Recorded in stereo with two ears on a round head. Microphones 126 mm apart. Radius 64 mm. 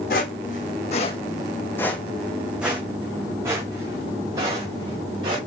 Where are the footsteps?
70° left (ahead or behind), 1.0 m; by 5.4 s 30° right (ahead or behind), 2.5 m.